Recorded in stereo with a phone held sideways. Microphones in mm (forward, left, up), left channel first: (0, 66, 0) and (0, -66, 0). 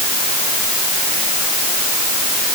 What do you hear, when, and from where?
Only background noise.